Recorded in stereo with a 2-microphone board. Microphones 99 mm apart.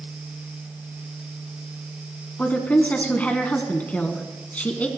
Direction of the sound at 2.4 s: 15° left (ahead or behind).